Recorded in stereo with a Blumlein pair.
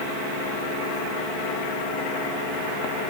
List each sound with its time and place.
Only background noise.